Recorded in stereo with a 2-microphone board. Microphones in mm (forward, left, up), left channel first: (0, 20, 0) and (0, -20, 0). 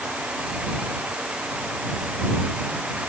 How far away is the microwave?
No microwave in this recording.